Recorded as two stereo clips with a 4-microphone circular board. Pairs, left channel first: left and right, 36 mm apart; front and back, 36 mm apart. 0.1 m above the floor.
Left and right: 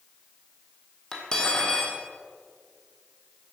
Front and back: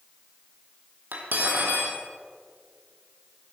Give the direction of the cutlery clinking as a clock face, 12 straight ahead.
7 o'clock.